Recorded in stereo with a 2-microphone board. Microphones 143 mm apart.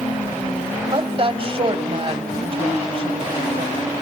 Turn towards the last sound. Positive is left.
turn(degrees=-40)  # may be behind; listen again after turning